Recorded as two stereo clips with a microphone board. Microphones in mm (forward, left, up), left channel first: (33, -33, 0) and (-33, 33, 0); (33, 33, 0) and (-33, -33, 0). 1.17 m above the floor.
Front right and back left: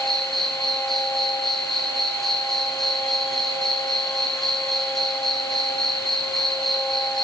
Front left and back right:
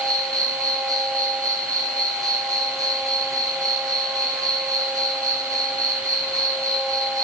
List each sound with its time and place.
0.0 s an insect: 130° right, 1.2 m